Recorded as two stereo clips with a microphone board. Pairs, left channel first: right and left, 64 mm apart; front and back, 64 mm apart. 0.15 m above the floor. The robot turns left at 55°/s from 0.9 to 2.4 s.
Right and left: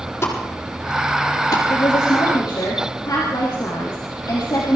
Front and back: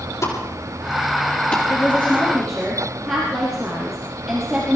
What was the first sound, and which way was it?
A pop, 35° right.